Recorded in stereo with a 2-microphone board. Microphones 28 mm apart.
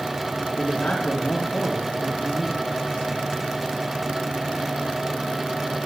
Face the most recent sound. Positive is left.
turn(degrees=75)  # may be behind; listen again after turning